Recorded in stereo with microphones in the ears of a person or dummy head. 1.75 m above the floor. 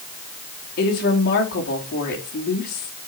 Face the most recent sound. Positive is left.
turn(degrees=50)  # may be behind; listen again after turning